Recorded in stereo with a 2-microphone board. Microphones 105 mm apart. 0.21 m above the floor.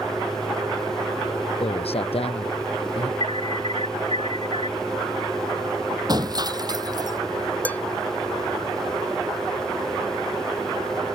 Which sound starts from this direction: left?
A man speaking, at 1.6 s.